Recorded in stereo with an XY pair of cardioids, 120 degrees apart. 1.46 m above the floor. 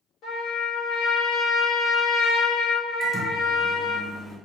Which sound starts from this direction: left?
A trumpet, at 0.2 s.